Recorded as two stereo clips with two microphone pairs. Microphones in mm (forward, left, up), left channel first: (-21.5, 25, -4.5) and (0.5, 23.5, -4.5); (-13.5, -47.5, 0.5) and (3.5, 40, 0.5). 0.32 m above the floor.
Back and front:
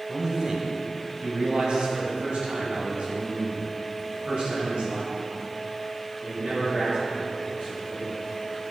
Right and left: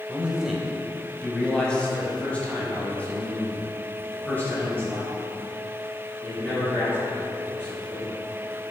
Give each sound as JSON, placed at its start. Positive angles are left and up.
{"t": 0.1, "sound": "a man speaking", "azimuth_deg": 25, "distance_m": 1.0}